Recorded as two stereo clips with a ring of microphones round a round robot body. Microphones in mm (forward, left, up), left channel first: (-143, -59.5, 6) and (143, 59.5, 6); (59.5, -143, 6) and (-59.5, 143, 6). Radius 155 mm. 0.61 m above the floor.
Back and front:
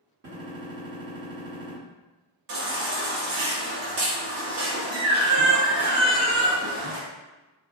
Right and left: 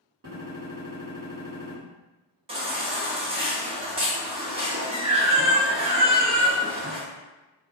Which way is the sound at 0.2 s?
75° left.